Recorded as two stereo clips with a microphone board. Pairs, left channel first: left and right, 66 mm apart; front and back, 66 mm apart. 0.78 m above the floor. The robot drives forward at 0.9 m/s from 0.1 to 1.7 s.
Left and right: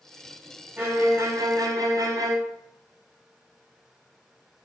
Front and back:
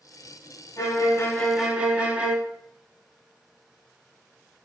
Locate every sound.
0.8 s a violin: 30° right, 0.9 m; by 2.4 s 105° right, 0.5 m